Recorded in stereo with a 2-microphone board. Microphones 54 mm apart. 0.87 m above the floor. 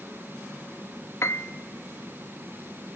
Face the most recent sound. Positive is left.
turn(degrees=60)  # may be behind; listen again after turning